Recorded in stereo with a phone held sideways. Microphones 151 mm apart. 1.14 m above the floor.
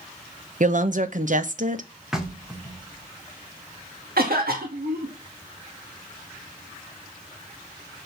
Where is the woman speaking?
55° right (ahead or behind), 1.0 m.